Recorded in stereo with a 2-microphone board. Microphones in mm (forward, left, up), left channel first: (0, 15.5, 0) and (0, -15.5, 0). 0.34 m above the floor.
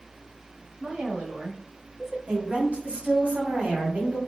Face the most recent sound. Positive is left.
turn(degrees=-55)  # may be behind; listen again after turning